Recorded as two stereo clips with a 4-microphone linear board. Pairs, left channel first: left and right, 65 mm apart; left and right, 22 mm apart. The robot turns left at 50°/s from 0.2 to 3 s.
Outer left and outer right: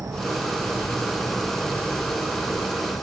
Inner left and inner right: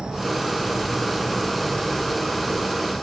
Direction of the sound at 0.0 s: 120° right.